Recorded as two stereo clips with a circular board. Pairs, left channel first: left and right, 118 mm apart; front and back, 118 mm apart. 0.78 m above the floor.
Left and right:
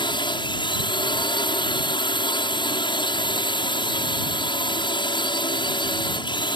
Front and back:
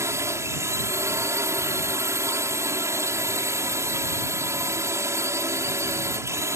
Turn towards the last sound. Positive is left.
turn(degrees=120)